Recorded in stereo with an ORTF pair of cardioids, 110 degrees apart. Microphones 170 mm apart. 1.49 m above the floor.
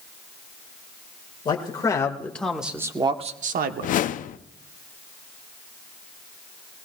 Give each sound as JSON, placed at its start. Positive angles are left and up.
{"t": 1.4, "sound": "a man speaking", "azimuth_deg": 25, "distance_m": 2.0}
{"t": 3.8, "sound": "a whoosh", "azimuth_deg": 50, "distance_m": 0.6}